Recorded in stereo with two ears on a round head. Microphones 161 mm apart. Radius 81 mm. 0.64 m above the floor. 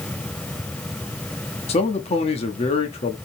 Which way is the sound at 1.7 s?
35° left (ahead or behind).